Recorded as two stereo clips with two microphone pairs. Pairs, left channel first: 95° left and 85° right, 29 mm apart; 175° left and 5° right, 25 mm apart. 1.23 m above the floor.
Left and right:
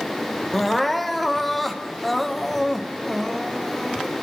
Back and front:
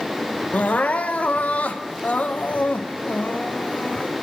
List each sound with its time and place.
0.5 s crying: 175° right, 0.9 m